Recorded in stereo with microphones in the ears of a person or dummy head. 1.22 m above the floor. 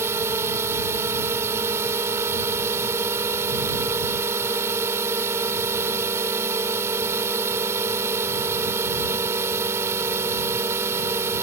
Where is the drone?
15° right (ahead or behind).